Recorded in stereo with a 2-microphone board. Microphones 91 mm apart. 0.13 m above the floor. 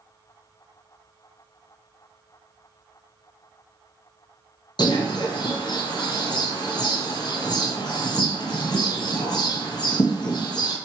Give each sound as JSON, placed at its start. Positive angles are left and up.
{"t": 4.8, "sound": "a bird", "side_deg": 50, "distance_m": 0.9}